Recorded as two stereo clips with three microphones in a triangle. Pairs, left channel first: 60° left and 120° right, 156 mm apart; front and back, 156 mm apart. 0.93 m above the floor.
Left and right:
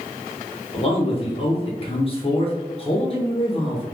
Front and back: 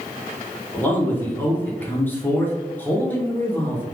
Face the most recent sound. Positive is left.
turn(degrees=70)